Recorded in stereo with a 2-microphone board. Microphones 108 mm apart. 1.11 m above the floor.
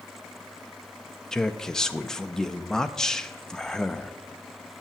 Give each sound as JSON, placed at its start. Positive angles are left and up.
{"t": 1.3, "sound": "a man speaking", "side_deg": 5, "distance_m": 0.5}